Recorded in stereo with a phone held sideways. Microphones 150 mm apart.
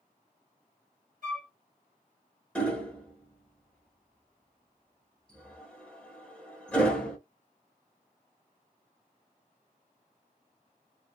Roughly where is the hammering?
Centre.